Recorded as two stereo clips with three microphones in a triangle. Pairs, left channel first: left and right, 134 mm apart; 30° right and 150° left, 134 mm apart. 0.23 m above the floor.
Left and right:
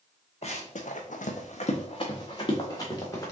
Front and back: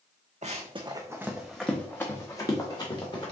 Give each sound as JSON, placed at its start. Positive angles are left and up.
{"t": 0.4, "sound": "running footsteps", "azimuth_deg": 125, "distance_m": 0.8}